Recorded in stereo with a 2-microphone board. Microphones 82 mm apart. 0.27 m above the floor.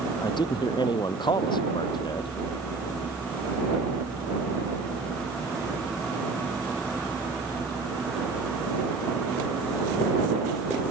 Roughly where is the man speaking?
Left.